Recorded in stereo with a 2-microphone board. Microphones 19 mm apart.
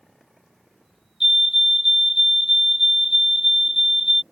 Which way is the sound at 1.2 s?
15° right (ahead or behind).